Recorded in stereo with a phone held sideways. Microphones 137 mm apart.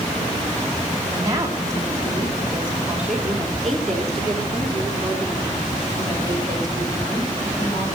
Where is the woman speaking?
25° right (ahead or behind), 3 m; by 8.0 s 30° left (ahead or behind), 4.5 m.